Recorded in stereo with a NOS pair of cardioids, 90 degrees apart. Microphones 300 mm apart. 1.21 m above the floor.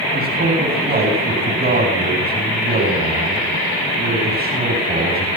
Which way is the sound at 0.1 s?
30° right.